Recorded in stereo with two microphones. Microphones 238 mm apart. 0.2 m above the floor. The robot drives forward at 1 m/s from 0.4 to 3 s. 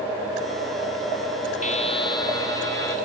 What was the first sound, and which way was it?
A buzzer, 35° left (ahead or behind).